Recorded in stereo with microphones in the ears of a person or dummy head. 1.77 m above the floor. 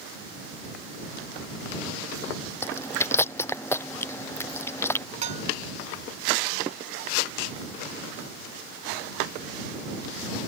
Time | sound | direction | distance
2.6 | chewing | 15° left (ahead or behind) | ?
5.2 | dishes clattering | 45° right (ahead or behind) | ?